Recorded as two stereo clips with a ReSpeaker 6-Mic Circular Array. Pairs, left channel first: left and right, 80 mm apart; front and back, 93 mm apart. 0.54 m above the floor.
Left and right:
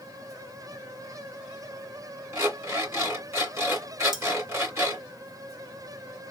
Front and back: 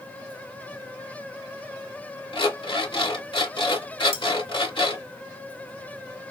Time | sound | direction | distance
2.3 | an alarm clock | 35° right | 2.5 m
4.1 | cutlery clinking | 5° right | 1.4 m